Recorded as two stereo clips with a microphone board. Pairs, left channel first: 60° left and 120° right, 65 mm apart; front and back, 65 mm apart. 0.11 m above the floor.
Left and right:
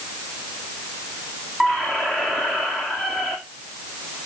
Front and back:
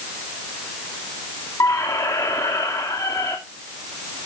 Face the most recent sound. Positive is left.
turn(degrees=-20)